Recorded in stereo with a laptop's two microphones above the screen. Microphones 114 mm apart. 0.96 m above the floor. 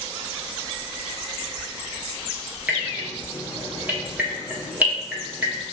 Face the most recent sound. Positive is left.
turn(degrees=-15)  # may be behind; listen again after turning